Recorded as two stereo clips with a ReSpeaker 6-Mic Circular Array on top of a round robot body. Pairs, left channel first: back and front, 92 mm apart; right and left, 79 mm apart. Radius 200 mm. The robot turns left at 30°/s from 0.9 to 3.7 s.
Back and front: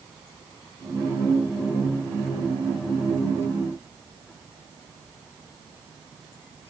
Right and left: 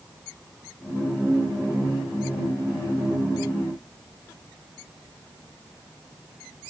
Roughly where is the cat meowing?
I don't hear a cat meowing.